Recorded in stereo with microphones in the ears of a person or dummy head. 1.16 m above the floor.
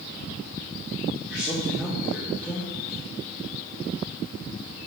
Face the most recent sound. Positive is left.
turn(degrees=-5)  # may be behind; listen again after turning